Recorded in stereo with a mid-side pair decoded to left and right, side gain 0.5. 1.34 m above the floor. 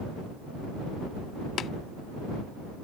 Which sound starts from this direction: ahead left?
Tapping, at 1.6 s.